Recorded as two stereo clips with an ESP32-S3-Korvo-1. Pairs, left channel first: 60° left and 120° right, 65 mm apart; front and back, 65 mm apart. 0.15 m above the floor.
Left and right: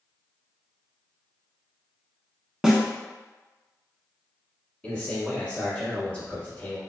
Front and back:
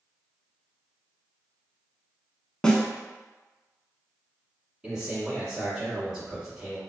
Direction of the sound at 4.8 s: 110° left.